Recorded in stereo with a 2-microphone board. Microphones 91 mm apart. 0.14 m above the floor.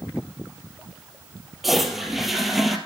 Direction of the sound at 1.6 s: Centre (ahead or behind).